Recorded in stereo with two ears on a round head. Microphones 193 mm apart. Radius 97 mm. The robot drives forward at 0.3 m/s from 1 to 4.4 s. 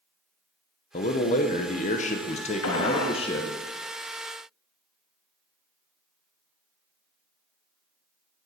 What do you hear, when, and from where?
0.9 s a man speaking: 35° left (ahead or behind), 0.7 m; by 3.6 s 25° left (ahead or behind), 1.0 m
2.6 s a gunshot: 75° left (ahead or behind), 0.9 m; by 3.2 s 85° left, 0.9 m